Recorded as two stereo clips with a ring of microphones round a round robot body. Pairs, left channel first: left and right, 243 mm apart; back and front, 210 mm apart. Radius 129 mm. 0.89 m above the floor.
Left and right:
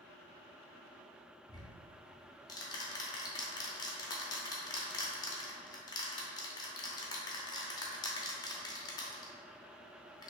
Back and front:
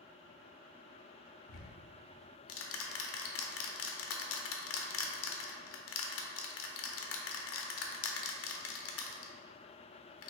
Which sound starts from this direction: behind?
Ticking, at 1.5 s.